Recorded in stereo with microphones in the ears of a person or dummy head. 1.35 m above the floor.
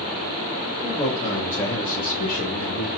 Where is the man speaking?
10° left (ahead or behind), 3 m; by 2.9 s 60° left (ahead or behind), 1.7 m.